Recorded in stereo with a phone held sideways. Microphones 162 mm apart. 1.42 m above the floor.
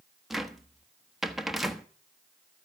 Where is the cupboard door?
Centre (ahead or behind), 1.1 m.